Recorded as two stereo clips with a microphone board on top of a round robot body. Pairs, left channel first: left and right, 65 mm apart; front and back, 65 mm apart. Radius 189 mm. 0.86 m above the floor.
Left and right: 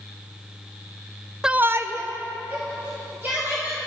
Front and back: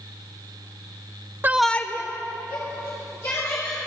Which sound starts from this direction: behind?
A shout, at 1.4 s.